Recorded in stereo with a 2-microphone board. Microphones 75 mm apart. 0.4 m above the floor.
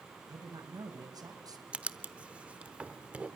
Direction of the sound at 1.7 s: 15° right (ahead or behind).